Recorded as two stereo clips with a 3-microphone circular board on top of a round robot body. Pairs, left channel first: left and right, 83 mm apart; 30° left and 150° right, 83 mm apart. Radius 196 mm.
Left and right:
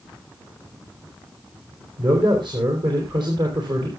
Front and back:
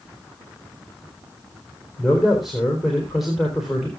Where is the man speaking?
60° right, 4 m.